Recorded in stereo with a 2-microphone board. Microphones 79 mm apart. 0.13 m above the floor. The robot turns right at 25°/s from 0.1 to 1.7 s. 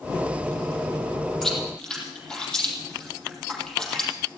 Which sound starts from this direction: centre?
Chewing, at 1.4 s.